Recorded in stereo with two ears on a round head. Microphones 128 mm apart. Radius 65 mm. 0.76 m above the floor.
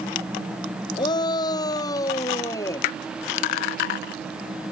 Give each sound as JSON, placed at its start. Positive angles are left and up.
{"t": 1.0, "sound": "a shout", "side_deg": 30}